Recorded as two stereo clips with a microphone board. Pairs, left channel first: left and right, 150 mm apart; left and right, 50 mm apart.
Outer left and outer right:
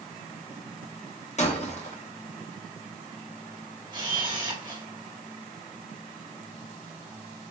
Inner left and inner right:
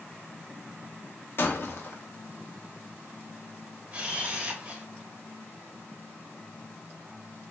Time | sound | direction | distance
1.4 | breaking glass | 50° left (ahead or behind) | 0.6 m
3.9 | a camera shutter | 30° right (ahead or behind) | 1.0 m